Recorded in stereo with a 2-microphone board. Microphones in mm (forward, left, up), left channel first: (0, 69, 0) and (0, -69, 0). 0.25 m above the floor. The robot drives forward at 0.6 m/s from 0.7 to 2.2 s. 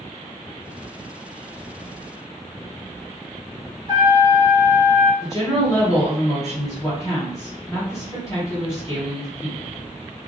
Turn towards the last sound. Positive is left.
turn(degrees=25)  # may be behind; listen again after turning